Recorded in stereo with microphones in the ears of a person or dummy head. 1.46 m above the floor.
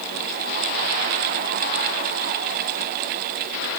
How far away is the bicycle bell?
I don't hear a bicycle bell.